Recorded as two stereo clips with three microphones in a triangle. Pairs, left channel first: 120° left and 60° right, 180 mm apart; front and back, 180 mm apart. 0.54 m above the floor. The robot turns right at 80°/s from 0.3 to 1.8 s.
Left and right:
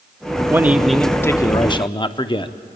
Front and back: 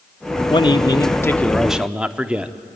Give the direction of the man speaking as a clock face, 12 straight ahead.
12 o'clock.